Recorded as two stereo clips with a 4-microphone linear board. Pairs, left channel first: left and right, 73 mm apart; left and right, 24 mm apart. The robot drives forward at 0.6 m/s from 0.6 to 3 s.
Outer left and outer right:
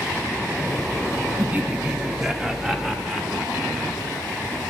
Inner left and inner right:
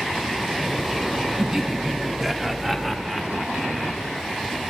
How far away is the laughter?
About 0.6 m.